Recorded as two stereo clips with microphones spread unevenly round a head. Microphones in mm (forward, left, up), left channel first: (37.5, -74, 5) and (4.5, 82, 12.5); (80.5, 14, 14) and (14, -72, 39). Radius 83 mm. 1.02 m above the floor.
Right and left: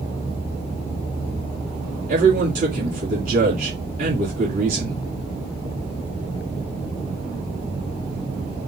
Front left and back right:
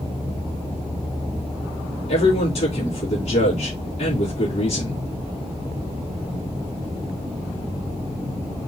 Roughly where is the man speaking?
Ahead left.